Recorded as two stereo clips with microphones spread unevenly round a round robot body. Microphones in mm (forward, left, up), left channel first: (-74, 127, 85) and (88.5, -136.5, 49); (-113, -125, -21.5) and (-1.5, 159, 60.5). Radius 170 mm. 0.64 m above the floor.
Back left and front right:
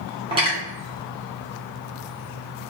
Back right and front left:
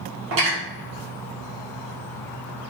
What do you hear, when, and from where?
0.3 s cutlery clinking: 10° left, 1.0 m